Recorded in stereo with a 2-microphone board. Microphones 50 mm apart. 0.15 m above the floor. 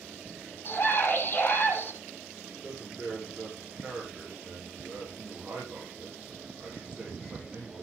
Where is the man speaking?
25° right (ahead or behind), 7.5 m.